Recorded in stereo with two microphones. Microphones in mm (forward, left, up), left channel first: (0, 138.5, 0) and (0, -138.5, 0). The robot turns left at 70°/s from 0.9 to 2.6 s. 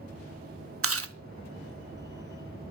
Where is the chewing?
55° right (ahead or behind), 0.7 m.